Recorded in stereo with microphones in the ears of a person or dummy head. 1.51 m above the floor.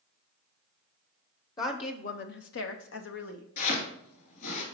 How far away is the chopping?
About 2.5 m.